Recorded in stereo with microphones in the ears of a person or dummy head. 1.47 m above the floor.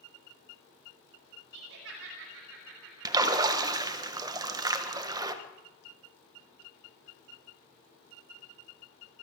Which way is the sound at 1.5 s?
75° right (ahead or behind).